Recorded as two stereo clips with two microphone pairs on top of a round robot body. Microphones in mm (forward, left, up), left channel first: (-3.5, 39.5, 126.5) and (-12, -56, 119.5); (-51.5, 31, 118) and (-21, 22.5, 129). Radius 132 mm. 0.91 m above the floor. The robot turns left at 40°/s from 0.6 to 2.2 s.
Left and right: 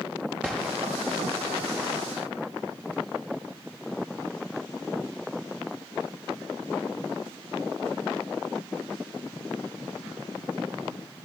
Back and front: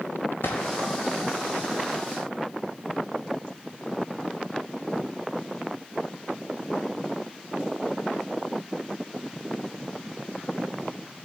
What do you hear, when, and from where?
0.4 s a gunshot: straight behind, 0.5 m; by 0.7 s 175° left, 0.5 m